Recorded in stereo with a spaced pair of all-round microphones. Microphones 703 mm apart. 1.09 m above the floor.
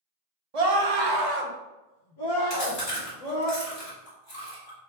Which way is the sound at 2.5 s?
35° left (ahead or behind).